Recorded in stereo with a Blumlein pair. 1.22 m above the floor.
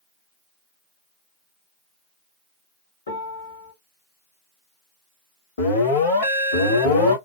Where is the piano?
70° left, 1.8 m.